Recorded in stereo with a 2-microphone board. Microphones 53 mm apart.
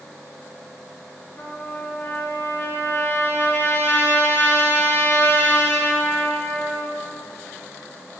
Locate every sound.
1.4 s a trumpet: 45° left (ahead or behind), 1.1 m